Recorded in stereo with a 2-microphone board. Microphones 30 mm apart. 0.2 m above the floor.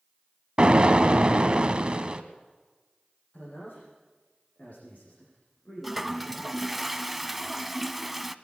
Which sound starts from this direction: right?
An explosion, at 0.6 s.